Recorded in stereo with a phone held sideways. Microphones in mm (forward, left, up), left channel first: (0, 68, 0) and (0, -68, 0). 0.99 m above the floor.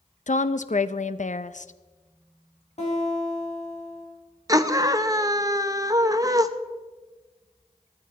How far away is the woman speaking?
About 0.6 m.